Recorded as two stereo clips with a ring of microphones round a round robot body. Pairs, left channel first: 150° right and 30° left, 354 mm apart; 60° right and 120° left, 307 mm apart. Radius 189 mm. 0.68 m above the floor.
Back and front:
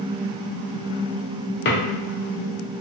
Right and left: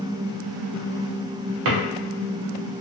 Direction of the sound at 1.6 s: 150° left.